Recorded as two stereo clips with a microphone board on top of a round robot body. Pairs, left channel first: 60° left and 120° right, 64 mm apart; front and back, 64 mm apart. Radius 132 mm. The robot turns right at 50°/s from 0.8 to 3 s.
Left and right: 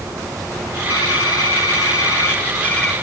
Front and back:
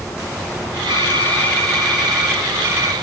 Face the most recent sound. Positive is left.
turn(degrees=140)